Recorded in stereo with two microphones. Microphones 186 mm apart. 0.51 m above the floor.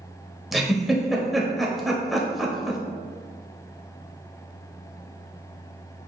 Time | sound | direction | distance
0.5 | a giggle | centre (ahead or behind) | 0.8 m